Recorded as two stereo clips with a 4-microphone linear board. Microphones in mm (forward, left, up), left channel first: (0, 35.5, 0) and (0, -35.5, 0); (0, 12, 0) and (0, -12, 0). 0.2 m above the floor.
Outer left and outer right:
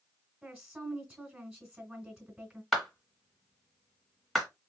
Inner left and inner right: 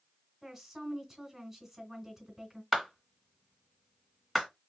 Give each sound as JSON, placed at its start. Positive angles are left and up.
{"t": 0.4, "sound": "a woman speaking", "side_deg": -15, "distance_m": 1.6}
{"t": 2.7, "sound": "a clap", "side_deg": 5, "distance_m": 2.0}